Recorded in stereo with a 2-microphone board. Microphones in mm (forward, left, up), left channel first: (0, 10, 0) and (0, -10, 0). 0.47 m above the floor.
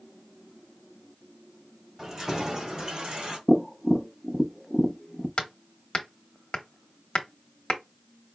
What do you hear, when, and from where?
2.0 s keys jangling: 25° right (ahead or behind), 1.9 m; by 3.4 s 55° right (ahead or behind), 2.0 m
3.5 s tapping: 10° right (ahead or behind), 0.6 m
5.4 s hammering: 50° left (ahead or behind), 0.9 m